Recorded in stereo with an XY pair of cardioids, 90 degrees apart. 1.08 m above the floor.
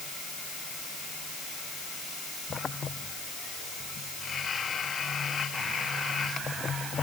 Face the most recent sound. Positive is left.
No sound to turn to.